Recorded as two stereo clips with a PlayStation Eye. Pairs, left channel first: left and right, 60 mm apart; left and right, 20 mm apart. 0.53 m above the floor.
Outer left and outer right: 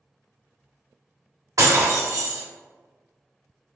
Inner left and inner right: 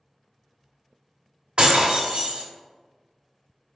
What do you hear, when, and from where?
1.6 s breaking glass: 75° right (ahead or behind), 0.8 m